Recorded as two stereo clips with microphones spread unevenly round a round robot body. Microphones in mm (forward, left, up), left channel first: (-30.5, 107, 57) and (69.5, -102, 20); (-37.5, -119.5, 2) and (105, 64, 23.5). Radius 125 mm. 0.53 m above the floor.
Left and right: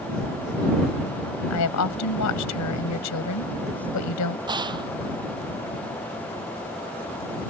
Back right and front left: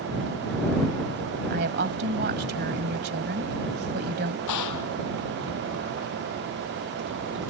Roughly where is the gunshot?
Behind right.